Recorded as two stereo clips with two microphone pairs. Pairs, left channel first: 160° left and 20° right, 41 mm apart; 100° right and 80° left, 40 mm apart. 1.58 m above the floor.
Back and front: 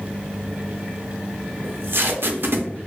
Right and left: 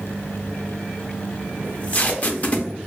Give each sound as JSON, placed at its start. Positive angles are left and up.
{"t": 1.6, "sound": "tape being pulled", "azimuth_deg": -45, "distance_m": 0.6}